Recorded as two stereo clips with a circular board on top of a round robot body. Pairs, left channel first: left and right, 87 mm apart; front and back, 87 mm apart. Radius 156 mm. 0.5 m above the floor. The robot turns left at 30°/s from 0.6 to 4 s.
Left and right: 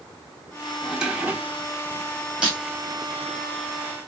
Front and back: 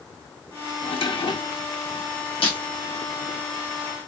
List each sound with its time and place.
0.8 s a drawer: 5° right, 0.9 m; by 1.7 s 30° right, 0.9 m
2.4 s breaking glass: 10° right, 2.5 m; by 2.6 s 15° right, 2.5 m